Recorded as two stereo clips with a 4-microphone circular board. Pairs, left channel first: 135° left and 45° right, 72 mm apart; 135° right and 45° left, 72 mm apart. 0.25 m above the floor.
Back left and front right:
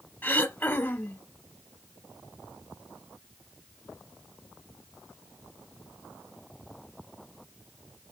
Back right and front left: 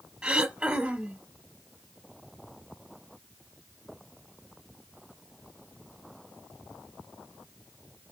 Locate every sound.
0.2 s throat clearing: 105° left, 1.0 m